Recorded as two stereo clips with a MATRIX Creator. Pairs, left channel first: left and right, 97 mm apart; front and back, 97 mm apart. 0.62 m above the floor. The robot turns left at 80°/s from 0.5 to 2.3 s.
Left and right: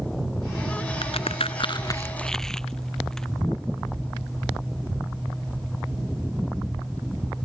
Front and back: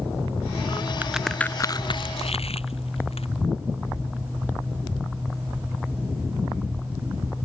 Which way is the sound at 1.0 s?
110° left.